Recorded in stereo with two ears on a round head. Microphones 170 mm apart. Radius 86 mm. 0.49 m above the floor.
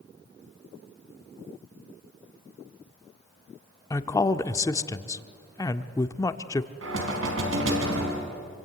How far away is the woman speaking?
About 0.8 m.